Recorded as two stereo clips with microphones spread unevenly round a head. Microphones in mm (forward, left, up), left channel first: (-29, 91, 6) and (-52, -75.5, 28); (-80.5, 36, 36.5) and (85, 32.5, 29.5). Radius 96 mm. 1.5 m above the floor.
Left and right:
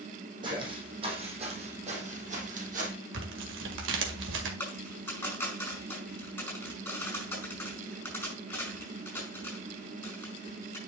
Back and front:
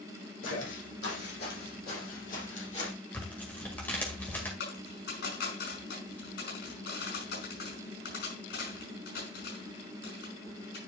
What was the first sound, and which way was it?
Footsteps, 155° right.